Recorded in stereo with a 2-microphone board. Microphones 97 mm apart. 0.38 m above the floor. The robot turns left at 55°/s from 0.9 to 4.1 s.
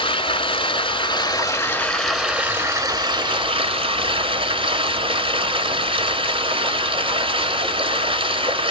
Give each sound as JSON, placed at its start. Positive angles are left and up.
{"t": 0.0, "sound": "running water", "azimuth_deg": 65, "distance_m": 1.8}